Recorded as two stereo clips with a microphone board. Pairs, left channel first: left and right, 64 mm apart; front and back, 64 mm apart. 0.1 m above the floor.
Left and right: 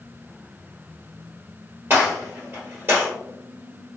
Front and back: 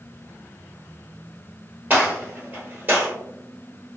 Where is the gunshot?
130° right, 1.6 m.